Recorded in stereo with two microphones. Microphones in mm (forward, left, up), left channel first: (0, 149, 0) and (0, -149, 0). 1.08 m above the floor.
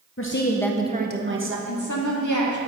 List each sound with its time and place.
0.2 s a woman speaking: 45° left (ahead or behind), 0.9 m; by 1.6 s 45° right (ahead or behind), 1.5 m
1.7 s a woman speaking: 80° left, 1.7 m